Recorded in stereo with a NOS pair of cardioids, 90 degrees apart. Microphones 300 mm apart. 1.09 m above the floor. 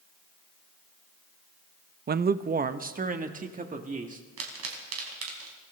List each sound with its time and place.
2.1 s a man speaking: 35° right, 0.6 m; by 4.2 s 25° right, 2.5 m
4.4 s a pop: 55° right, 4 m